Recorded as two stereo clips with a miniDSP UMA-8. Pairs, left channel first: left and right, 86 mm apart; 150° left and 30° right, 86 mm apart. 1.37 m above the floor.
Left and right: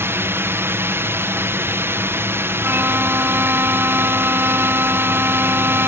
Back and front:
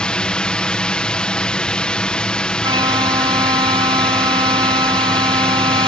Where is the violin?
25° right.